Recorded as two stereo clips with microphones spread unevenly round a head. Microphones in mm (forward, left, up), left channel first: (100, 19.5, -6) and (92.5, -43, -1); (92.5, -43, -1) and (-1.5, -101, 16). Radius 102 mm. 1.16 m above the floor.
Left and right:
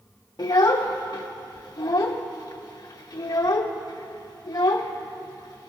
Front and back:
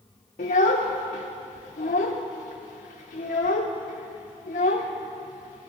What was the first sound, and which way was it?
A child speaking, 60° left.